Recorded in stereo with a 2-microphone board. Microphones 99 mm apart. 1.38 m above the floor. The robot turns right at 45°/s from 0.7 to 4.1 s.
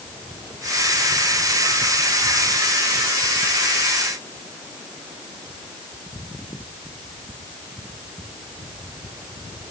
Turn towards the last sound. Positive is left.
No sound to turn to.